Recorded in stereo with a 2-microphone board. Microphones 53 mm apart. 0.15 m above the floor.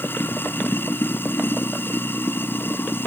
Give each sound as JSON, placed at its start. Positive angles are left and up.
{"t": 0.0, "sound": "running water", "side_deg": 40}